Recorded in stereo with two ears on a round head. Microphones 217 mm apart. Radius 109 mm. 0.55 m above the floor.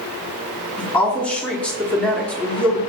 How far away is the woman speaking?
About 0.9 m.